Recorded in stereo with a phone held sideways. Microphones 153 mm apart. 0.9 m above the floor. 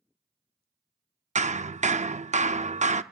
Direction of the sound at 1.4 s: 50° right (ahead or behind).